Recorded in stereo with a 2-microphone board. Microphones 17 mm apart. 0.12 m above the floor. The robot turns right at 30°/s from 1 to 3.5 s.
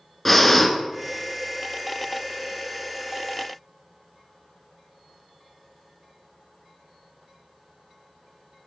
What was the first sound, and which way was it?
Breathing, 10° left (ahead or behind).